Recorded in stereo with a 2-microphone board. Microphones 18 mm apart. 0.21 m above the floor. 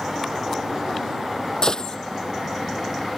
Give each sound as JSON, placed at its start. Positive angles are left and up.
{"t": 1.6, "sound": "a gunshot", "side_deg": 35}